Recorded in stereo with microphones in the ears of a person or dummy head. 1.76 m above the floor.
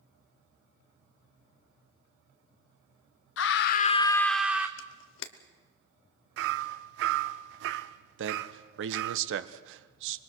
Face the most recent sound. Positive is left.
turn(degrees=-75)  # may be behind; listen again after turning